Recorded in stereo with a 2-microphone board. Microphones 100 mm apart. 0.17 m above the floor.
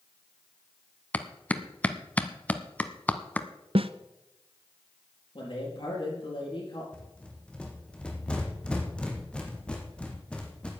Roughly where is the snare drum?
Right.